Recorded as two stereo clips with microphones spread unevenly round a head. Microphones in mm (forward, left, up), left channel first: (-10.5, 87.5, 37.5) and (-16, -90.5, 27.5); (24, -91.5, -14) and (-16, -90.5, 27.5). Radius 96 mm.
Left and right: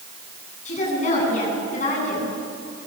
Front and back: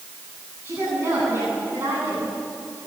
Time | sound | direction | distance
0.7 | a woman speaking | 140° left | 10 m